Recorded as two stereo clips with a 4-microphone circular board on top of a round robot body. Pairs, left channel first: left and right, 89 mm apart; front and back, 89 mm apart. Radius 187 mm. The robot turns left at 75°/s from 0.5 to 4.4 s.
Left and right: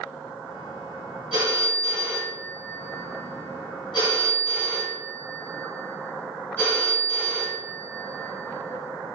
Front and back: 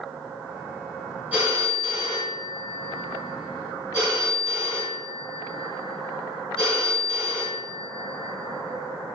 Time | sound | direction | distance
1.3 | a phone ringing | 105° right | 1.2 m